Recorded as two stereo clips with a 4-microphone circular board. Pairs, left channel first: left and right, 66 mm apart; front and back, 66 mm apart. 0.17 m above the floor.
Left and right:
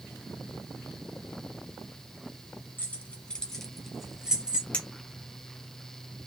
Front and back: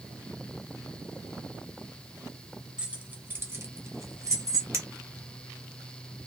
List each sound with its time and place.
2.8 s keys jangling: 120° left, 0.8 m; by 4.6 s 165° right, 1.3 m
4.7 s a clink: 155° left, 0.9 m